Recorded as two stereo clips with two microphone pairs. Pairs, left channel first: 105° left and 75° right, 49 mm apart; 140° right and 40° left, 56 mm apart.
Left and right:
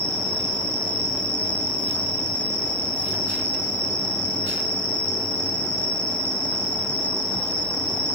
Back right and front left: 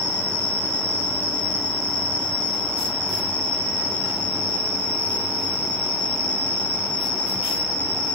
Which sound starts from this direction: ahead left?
An insect, at 0.0 s.